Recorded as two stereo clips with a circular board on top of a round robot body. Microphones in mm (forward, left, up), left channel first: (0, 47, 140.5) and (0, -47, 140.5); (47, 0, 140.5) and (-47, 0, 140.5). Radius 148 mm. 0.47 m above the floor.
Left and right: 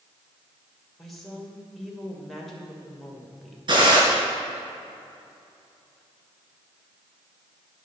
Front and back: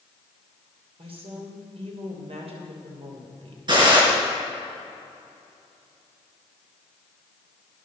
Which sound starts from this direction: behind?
A woman speaking, at 1.0 s.